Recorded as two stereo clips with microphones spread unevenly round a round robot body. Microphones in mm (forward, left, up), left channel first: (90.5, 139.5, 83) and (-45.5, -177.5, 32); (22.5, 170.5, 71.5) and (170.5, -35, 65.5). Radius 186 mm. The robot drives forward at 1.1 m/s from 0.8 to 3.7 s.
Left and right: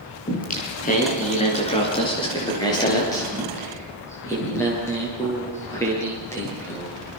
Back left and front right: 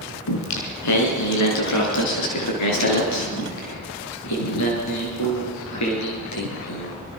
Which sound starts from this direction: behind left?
Singing, at 0.3 s.